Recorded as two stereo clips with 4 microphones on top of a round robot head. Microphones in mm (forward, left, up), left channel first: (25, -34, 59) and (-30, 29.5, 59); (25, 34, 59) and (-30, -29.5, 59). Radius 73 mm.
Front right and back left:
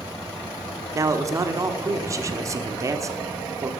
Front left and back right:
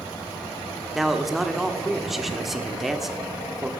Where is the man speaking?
145° left, 1.3 m.